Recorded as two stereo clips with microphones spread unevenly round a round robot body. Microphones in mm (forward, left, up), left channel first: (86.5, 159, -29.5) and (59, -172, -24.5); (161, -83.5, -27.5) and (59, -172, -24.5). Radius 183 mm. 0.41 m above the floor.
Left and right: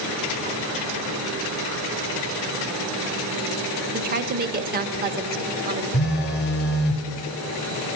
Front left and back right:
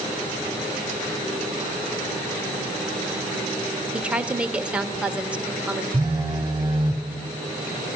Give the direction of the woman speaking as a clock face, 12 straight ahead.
2 o'clock.